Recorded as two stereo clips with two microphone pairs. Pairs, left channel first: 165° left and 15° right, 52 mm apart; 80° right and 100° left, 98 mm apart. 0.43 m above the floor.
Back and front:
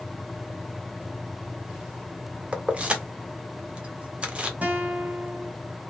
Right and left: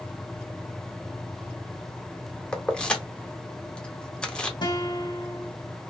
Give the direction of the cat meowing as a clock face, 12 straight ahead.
No cat meowing in this recording.